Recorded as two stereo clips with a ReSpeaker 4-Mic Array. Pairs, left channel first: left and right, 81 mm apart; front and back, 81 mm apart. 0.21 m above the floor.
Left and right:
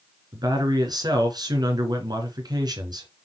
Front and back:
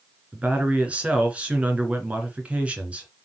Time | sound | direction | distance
0.3 | a man speaking | 110° right | 2.5 m